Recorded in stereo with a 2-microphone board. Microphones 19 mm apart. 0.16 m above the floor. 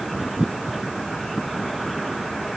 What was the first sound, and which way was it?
Only background noise.